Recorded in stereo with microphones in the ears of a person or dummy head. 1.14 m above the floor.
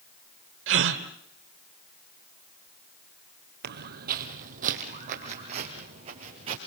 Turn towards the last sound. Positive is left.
turn(degrees=-35)  # may be behind; listen again after turning